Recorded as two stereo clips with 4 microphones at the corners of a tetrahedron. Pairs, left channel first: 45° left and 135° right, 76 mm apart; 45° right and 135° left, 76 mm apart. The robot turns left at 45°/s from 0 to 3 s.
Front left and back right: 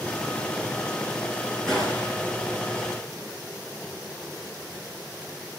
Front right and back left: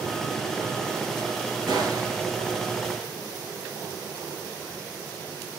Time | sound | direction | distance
1.7 | a gunshot | 125° left | 2.5 m